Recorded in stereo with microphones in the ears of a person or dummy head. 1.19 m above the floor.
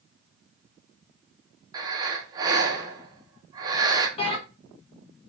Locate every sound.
1.7 s breathing: 10° right (ahead or behind), 0.5 m
4.2 s a bell: 35° left (ahead or behind), 1.2 m